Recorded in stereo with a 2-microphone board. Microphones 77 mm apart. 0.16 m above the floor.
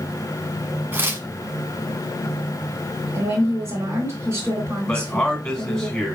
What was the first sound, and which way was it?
Tearing paper, 30° right (ahead or behind).